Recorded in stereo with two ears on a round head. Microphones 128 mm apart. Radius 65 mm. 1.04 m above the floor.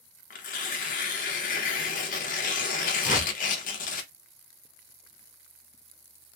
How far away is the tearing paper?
About 0.7 m.